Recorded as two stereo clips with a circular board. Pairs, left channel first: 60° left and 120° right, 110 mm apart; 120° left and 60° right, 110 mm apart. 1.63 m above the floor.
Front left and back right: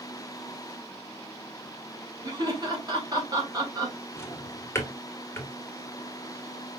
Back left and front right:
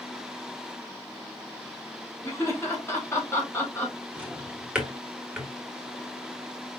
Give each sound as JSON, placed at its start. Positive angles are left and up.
{"t": 2.2, "sound": "laughter", "azimuth_deg": -175, "distance_m": 3.0}
{"t": 4.2, "sound": "a drawer", "azimuth_deg": 15, "distance_m": 1.3}